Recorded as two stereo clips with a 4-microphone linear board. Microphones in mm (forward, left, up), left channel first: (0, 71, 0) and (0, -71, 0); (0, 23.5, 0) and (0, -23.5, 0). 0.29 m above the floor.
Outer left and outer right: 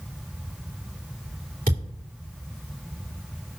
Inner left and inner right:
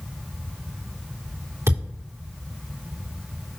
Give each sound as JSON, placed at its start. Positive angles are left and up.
{"t": 1.7, "sound": "a thud", "side_deg": -75, "distance_m": 4.0}